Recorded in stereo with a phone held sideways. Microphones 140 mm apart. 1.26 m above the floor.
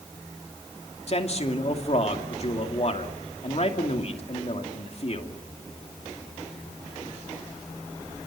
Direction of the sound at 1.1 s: 50° left (ahead or behind).